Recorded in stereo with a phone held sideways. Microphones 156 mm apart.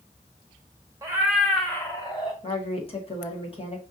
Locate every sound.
1.0 s a cat meowing: 20° right (ahead or behind), 1.0 m; by 2.3 s 30° left (ahead or behind), 1.4 m
2.4 s a woman speaking: 35° left (ahead or behind), 1.4 m